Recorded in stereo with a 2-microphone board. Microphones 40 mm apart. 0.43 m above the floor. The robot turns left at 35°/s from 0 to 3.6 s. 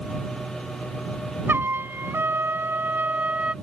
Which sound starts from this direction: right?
A trumpet, at 1.5 s.